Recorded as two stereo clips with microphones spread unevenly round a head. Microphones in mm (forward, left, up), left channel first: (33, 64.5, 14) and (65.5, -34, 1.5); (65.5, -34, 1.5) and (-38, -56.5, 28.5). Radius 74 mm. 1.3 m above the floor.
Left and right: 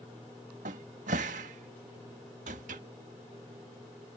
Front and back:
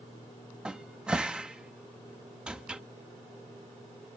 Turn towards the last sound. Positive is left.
turn(degrees=-90)